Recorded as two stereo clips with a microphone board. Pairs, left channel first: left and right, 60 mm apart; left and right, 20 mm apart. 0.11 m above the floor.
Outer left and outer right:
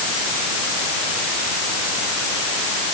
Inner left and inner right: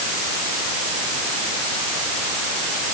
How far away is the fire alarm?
No fire alarm in this recording.